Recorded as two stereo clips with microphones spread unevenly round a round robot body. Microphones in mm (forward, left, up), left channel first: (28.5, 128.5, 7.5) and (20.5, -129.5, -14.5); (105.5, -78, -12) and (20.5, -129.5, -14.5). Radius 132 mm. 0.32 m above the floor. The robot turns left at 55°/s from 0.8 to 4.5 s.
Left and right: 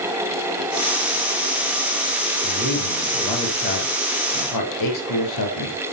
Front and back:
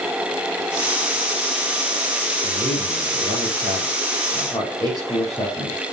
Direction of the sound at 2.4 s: 140° right.